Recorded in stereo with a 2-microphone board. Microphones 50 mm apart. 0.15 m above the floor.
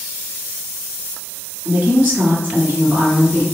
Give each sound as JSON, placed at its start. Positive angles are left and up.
{"t": 1.6, "sound": "a woman speaking", "side_deg": -30, "distance_m": 1.4}